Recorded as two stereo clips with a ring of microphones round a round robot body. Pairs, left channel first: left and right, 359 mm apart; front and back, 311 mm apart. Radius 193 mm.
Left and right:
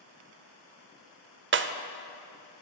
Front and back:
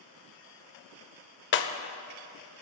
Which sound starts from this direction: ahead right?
Breaking glass, at 1.5 s.